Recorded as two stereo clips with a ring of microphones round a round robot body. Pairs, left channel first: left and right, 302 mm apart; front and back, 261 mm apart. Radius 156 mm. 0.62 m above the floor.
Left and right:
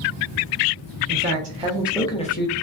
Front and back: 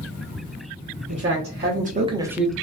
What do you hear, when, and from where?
1.1 s a man speaking: 140° right, 0.9 m; by 2.5 s 85° left, 0.6 m